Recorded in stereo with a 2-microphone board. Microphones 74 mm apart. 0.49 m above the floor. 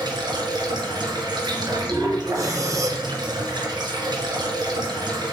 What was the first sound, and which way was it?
Running water, 80° right.